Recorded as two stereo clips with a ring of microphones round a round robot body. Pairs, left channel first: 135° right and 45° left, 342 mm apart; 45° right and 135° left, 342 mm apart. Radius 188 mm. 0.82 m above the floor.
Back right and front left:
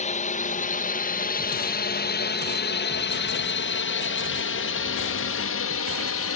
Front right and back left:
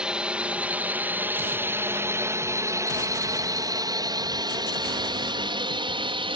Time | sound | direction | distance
0.0 | a drone | 140° right | ?